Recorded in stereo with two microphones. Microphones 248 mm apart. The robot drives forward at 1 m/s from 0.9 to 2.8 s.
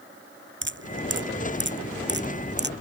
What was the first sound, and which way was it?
Dripping, 50° right (ahead or behind).